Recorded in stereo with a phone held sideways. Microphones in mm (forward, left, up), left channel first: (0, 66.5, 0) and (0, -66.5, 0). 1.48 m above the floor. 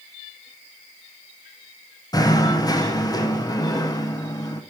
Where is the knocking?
30° left (ahead or behind), 0.6 m.